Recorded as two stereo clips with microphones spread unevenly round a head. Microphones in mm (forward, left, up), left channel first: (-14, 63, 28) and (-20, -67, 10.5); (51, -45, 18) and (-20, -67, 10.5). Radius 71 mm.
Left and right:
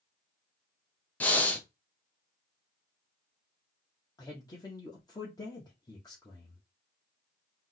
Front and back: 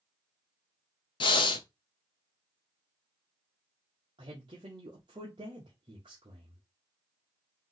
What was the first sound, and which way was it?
Breathing, 10° left.